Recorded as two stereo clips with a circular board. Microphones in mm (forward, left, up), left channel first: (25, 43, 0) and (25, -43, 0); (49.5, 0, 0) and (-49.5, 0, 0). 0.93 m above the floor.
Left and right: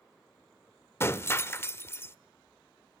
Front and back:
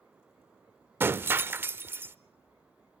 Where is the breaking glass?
125° left, 0.7 m.